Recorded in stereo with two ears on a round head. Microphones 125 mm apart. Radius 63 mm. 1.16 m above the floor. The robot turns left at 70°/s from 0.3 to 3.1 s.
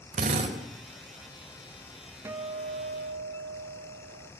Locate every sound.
0.1 s a drill: 55° right (ahead or behind), 4.5 m; by 0.6 s 30° right (ahead or behind), 4.5 m
2.2 s a guitar: 20° right, 1.0 m; by 4.3 s 80° right, 1.0 m